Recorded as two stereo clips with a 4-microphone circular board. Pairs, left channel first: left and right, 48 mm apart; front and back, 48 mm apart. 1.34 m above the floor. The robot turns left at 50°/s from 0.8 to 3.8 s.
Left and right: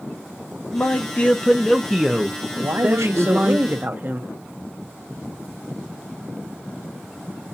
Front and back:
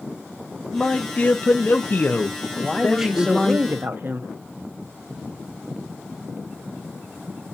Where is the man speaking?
60° left, 0.6 m; by 3.6 s 80° right, 0.6 m.